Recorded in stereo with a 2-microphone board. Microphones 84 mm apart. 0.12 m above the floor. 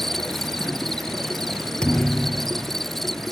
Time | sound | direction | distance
0.0 | an insect | 5° left (ahead or behind) | ?
1.8 | a thud | 10° left (ahead or behind) | ?